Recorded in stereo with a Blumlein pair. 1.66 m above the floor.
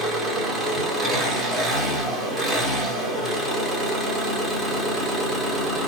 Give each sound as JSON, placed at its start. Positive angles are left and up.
{"t": 0.0, "sound": "an engine running", "azimuth_deg": -15, "distance_m": 1.4}